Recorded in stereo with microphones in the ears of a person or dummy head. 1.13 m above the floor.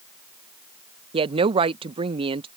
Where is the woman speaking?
25° right (ahead or behind).